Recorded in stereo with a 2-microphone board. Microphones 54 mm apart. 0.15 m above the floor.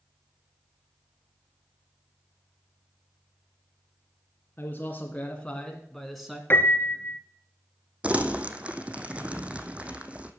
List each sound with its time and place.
4.6 s a man speaking: 35° left (ahead or behind), 2 m; by 6.4 s 5° right (ahead or behind), 1.8 m
6.5 s a piano: 40° left (ahead or behind), 1.5 m
8.0 s crumpling: 25° right (ahead or behind), 1.3 m